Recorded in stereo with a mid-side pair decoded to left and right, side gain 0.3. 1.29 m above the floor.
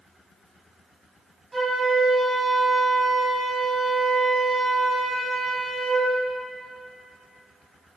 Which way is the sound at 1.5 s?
35° right.